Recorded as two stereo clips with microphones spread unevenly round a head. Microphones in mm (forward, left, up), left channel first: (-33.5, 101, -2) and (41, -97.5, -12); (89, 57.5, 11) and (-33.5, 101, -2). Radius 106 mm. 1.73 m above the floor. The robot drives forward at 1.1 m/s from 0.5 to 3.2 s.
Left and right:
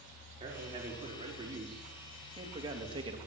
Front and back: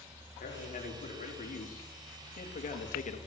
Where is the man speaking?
Straight ahead, 5 m.